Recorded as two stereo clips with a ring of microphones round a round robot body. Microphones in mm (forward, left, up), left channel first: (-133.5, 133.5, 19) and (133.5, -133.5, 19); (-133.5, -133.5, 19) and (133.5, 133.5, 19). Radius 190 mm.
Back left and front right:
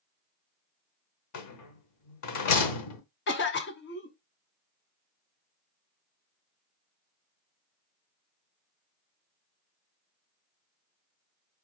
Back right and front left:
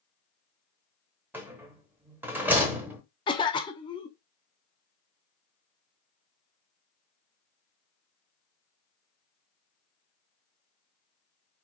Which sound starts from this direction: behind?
A cough, at 3.3 s.